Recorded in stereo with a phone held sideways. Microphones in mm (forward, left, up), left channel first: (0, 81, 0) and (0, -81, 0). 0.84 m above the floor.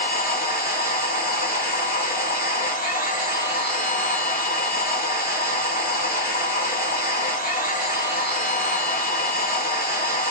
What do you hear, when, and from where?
0.0 s a machine running: 65° left (ahead or behind), 2.5 m